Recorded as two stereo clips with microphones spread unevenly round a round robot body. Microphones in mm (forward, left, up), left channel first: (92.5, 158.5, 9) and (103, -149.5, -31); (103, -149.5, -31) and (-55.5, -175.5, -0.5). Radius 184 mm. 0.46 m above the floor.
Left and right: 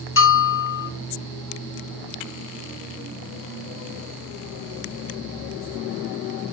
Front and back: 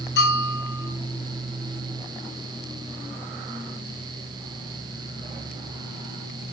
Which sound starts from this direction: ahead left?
A bell, at 0.2 s.